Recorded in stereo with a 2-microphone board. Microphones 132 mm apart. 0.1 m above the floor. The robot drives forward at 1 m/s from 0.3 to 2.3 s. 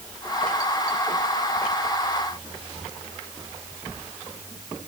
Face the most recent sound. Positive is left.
No sound to turn to.